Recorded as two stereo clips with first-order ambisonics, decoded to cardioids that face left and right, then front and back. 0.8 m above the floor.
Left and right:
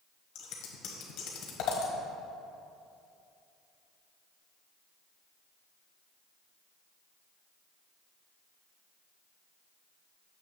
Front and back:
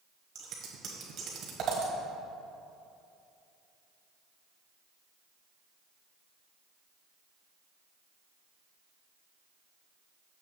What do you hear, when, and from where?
0.3 s scissors: 125° left, 1.4 m